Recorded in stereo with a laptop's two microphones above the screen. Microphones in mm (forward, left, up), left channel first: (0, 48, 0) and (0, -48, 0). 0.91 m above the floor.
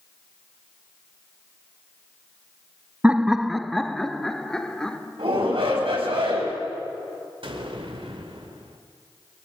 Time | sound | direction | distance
3.0 | laughter | 15° right (ahead or behind) | 0.5 m
5.2 | a shout | 75° right (ahead or behind) | 6 m
7.4 | an explosion | 70° right (ahead or behind) | 2 m